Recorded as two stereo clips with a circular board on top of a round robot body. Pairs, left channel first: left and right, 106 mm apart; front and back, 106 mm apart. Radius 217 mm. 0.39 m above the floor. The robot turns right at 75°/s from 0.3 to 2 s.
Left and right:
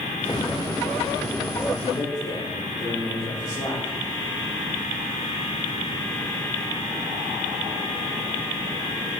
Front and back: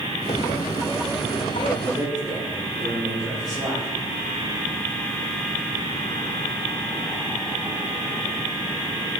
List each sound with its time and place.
1.8 s a man speaking: 75° left, 4 m; by 3.9 s 90° left, 4 m